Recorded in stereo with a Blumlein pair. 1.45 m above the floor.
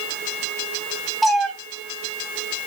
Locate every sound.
1.2 s a cat meowing: 5° right, 5.5 m